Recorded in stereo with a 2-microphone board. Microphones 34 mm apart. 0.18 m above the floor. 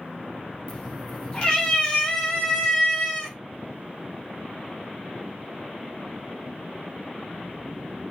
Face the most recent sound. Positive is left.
turn(degrees=15)  # may be behind; listen again after turning